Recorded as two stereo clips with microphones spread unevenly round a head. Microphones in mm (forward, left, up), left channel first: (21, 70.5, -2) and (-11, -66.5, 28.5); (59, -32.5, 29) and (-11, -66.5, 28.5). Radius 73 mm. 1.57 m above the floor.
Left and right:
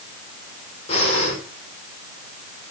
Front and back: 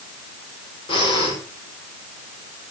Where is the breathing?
25° left, 5.5 m.